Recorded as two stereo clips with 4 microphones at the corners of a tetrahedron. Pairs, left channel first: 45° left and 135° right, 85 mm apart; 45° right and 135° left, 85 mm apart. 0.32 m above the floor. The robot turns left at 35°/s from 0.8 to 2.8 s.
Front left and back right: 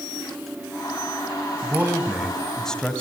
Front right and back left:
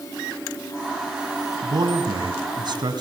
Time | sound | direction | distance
1.6 | a man speaking | 165° left | 2 m